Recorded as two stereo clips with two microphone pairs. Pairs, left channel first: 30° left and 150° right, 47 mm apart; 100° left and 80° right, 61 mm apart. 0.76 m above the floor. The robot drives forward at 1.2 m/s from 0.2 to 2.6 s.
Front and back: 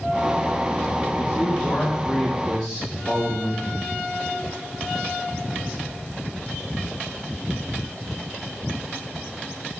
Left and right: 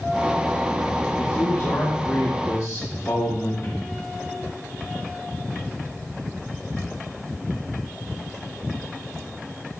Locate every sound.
1.2 s a man speaking: 85° left, 1.7 m; by 3.9 s 135° left, 2.5 m